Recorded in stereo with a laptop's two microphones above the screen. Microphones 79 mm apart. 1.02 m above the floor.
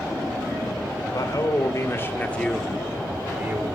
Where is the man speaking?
55° left (ahead or behind), 3 m; by 3.7 s 35° right (ahead or behind), 2.5 m.